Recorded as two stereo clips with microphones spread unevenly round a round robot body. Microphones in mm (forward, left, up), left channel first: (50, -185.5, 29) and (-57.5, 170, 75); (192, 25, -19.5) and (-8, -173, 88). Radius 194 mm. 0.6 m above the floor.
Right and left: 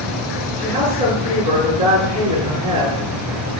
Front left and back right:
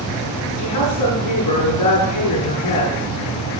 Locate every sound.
0.6 s a woman speaking: 70° left, 8 m